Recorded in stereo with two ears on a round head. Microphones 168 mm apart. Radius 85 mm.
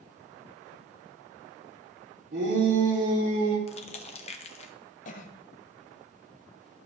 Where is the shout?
55° right (ahead or behind), 3 m; by 3.6 s 65° right (ahead or behind), 4 m.